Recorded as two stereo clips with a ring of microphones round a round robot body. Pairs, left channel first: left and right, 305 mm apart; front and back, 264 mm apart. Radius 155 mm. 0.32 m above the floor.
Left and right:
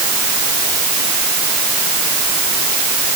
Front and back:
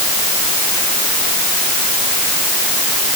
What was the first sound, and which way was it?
Only background noise.